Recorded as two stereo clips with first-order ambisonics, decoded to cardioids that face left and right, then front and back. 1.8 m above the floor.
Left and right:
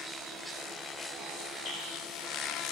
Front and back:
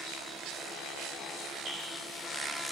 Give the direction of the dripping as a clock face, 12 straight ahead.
8 o'clock.